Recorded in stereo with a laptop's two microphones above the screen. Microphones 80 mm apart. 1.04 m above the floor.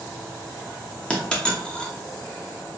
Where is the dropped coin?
10° left (ahead or behind), 0.7 m.